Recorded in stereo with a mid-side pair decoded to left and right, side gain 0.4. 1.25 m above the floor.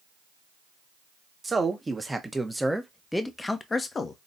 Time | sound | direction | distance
1.4 | a man speaking | 25° right | 1.5 m